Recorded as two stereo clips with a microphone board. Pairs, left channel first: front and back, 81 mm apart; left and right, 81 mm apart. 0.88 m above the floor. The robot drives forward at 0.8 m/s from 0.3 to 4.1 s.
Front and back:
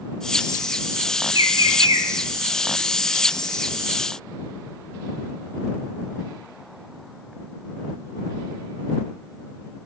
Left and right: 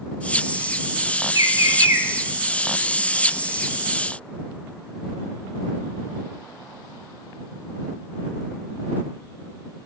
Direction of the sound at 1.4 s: 130° right.